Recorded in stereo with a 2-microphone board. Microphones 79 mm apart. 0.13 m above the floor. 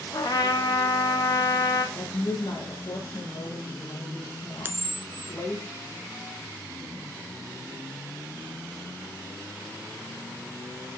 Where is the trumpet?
50° left (ahead or behind), 3.5 m.